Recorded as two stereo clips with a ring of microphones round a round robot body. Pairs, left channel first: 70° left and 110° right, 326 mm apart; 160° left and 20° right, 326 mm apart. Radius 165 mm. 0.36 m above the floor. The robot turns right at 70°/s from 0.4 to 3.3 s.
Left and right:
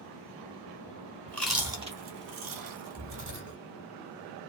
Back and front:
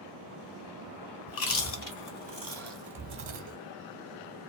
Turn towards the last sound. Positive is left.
turn(degrees=-75)